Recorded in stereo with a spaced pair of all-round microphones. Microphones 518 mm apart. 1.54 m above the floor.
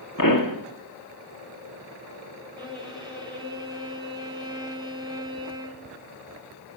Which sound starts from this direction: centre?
A violin, at 2.6 s.